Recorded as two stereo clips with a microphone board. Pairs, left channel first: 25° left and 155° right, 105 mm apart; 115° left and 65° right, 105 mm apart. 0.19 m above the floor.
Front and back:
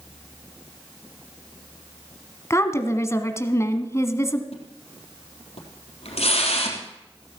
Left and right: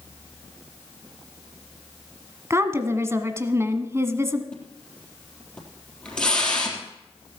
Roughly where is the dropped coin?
I don't hear a dropped coin.